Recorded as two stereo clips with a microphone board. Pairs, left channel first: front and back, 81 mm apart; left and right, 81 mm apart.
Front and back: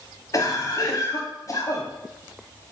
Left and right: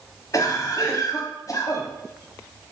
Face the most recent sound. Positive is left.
turn(degrees=35)